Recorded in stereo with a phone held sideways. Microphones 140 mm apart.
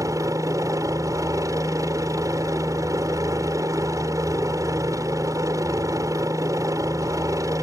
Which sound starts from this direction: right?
A helicopter, at 0.0 s.